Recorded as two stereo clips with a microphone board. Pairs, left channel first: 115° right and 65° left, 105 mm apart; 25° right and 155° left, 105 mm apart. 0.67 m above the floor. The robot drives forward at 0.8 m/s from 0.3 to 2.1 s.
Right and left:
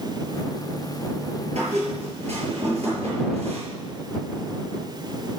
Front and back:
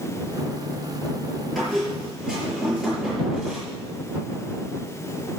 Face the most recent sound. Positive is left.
turn(degrees=75)